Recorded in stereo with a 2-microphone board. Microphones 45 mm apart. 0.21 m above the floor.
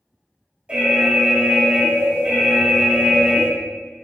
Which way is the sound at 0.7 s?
25° right (ahead or behind).